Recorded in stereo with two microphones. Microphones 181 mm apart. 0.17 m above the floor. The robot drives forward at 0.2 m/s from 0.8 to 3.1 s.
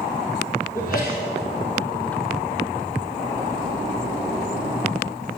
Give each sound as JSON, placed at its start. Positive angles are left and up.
{"t": 0.8, "sound": "a sneeze", "side_deg": 50, "distance_m": 6.5}